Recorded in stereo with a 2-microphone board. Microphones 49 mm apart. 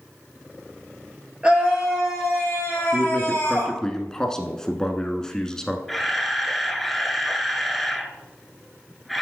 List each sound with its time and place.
1.4 s a scream: 20° right (ahead or behind), 2.5 m; by 3.8 s 35° left (ahead or behind), 3 m
2.9 s a man speaking: 15° left (ahead or behind), 1.1 m
5.9 s a camera shutter: 5° left (ahead or behind), 0.8 m